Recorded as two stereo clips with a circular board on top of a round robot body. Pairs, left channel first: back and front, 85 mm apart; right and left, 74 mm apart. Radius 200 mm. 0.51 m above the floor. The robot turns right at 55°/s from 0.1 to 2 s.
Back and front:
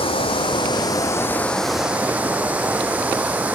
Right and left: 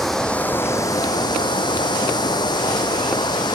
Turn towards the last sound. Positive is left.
turn(degrees=-75)